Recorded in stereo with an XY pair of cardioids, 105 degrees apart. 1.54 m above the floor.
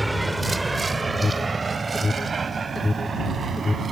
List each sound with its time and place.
0.0 s a vehicle: 10° right; by 3.9 s 40° right
1.1 s an alarm: 20° left